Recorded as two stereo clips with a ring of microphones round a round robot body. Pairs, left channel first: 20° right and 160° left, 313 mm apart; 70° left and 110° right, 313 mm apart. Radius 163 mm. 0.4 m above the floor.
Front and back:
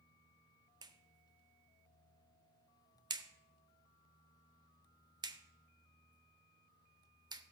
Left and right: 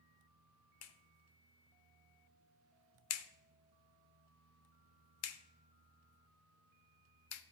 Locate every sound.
0.8 s a clap: 85° left, 0.8 m